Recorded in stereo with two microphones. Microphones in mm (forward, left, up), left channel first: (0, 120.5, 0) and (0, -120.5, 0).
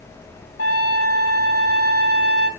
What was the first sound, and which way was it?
A trumpet, 70° left (ahead or behind).